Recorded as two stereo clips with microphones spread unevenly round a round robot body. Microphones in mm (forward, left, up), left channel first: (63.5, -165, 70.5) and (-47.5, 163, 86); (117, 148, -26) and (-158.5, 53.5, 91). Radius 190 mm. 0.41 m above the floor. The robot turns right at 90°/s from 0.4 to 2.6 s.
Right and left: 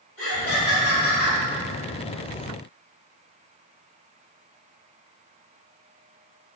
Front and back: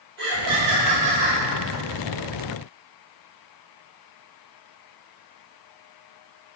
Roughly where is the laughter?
Behind right.